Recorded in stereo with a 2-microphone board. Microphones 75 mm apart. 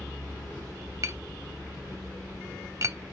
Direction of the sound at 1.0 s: 40° right (ahead or behind).